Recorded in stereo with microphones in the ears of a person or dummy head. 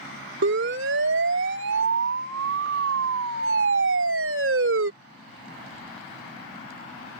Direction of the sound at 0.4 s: 65° right (ahead or behind).